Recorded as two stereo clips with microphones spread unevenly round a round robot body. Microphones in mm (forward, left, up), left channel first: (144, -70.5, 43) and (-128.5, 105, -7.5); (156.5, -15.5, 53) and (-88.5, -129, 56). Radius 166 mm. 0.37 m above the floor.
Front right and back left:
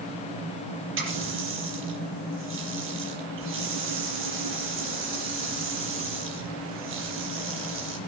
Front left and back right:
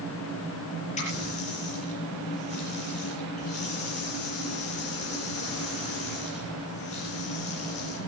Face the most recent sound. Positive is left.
turn(degrees=95)